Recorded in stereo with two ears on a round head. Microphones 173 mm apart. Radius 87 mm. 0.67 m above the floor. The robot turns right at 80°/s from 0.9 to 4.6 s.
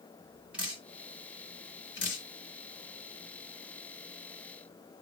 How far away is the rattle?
I don't hear a rattle.